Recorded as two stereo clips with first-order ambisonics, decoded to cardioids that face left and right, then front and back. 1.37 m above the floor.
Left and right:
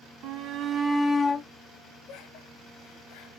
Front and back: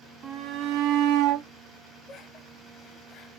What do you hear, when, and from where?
0.2 s a shout: 125° right, 1.0 m; by 1.5 s 150° left, 1.0 m
2.1 s laughter: 55° left, 0.9 m